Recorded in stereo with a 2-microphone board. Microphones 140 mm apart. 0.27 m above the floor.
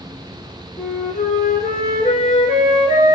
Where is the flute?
70° left (ahead or behind), 1.9 m.